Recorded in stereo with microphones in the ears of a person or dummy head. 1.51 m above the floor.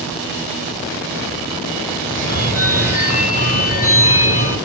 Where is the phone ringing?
45° left (ahead or behind), 0.8 m.